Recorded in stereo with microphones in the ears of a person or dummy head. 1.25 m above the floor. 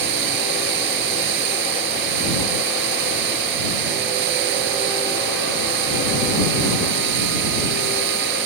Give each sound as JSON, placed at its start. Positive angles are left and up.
{"t": 0.0, "sound": "running water", "side_deg": -55}